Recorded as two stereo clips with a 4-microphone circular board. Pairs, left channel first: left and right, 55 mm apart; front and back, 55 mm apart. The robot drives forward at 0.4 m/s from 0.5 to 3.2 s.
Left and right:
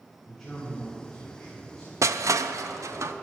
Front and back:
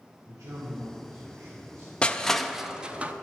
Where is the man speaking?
175° left, 1.8 m.